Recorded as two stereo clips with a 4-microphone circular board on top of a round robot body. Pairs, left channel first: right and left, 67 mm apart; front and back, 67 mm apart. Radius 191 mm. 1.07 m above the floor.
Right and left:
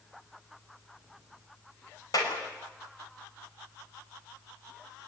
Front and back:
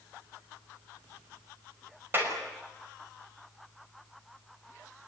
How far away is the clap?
About 6 m.